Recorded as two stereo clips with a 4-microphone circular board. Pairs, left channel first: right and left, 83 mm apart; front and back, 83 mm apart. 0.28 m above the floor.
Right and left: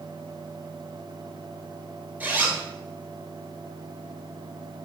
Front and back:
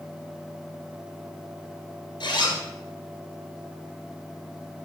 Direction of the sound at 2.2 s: 20° left.